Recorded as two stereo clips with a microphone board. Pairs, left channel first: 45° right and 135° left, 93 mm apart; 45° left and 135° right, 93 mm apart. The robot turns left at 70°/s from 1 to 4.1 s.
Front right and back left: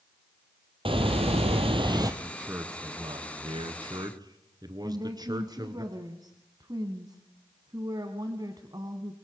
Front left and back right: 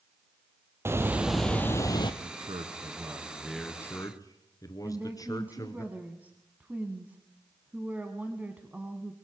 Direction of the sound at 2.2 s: 135° right.